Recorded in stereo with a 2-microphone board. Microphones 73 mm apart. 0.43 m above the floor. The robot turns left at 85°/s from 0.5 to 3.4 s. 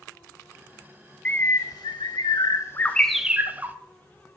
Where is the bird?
160° left, 0.6 m; by 3.8 s 25° right, 0.6 m.